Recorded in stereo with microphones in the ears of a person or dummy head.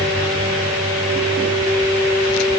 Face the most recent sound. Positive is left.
No sound to turn to.